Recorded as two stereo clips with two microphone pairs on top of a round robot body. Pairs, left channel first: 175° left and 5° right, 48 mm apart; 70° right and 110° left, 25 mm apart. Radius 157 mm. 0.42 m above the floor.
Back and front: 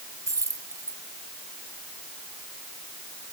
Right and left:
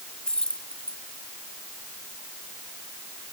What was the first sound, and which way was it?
Keys jangling, 15° right.